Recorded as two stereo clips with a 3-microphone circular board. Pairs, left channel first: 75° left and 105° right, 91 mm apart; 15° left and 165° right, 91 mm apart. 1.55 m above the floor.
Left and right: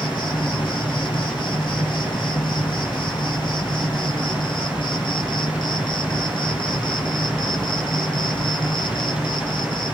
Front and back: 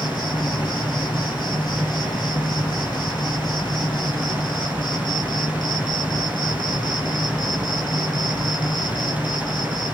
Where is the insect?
50° left, 0.8 m.